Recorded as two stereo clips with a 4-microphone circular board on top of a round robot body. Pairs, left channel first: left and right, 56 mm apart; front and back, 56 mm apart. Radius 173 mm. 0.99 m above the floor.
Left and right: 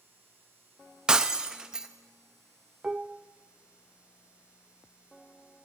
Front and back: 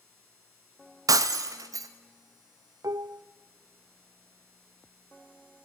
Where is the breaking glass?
170° right, 0.6 m.